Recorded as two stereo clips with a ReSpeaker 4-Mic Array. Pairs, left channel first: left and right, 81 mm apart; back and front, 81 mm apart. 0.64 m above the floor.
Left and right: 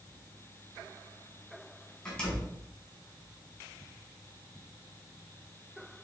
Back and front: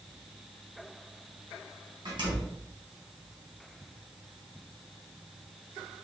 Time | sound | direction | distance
2.0 | a door slam | 10° left | 4 m